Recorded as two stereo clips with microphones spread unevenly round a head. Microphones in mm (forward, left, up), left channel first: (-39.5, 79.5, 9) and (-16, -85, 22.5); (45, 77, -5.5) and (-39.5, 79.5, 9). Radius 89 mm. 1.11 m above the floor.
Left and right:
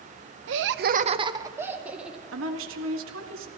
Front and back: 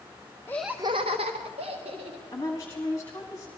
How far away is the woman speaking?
About 1.4 m.